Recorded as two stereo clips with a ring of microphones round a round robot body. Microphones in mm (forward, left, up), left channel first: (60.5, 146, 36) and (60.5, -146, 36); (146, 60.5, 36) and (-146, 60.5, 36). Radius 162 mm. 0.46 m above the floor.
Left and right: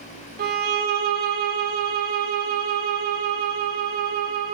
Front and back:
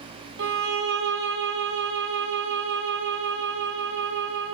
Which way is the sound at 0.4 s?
145° right.